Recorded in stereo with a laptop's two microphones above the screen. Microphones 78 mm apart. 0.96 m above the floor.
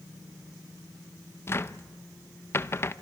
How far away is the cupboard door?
About 0.6 m.